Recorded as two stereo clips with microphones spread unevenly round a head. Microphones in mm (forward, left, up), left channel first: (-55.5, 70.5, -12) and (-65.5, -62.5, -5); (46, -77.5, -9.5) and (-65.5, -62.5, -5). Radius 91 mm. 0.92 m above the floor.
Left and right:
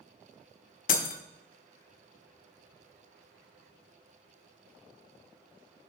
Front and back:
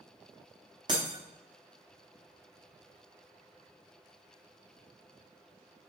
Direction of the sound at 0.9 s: 105° left.